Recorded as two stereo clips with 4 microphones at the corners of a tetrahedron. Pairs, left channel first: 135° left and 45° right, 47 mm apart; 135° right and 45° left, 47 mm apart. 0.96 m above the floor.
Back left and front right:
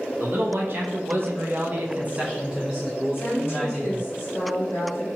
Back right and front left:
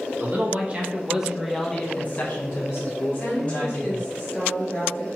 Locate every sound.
0.2 s a man speaking: 5° right, 1.1 m; by 4.1 s 145° right, 1.4 m
3.1 s a woman speaking: 165° left, 1.6 m